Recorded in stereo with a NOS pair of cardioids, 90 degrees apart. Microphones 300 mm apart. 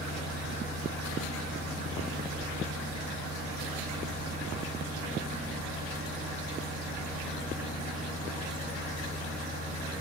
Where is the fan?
55° right, 3 m.